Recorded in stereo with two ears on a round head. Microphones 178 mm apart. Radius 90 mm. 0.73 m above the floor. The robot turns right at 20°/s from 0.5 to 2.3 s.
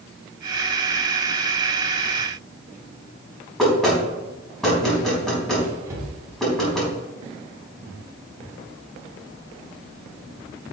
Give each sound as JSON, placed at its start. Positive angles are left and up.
{"t": 3.6, "sound": "knocking", "side_deg": 0, "distance_m": 4.0}
{"t": 5.9, "sound": "a cupboard door", "side_deg": -15, "distance_m": 3.5}